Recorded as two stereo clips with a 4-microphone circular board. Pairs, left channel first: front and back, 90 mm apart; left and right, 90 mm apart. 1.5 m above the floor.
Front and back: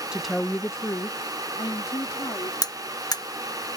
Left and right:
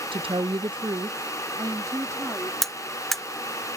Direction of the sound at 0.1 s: 100° right.